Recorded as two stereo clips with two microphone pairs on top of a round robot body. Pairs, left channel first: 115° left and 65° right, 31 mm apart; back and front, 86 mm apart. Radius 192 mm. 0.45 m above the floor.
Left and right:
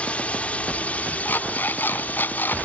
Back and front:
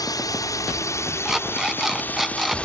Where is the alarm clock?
90° left.